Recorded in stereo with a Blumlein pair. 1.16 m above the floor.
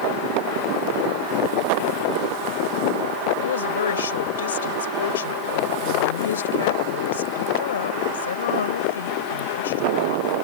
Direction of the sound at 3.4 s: 65° left.